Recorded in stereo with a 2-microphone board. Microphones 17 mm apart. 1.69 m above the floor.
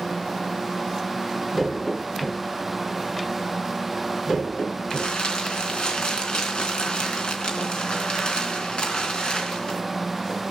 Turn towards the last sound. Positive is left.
turn(degrees=55)  # may be behind; listen again after turning